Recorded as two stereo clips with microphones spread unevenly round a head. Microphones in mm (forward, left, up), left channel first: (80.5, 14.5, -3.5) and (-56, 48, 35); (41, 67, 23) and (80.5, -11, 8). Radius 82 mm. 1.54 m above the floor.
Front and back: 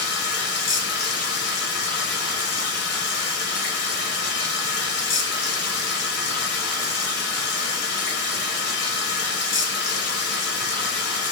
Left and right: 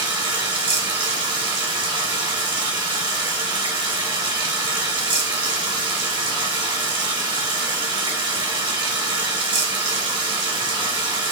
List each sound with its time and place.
0.0 s running water: 30° right, 0.8 m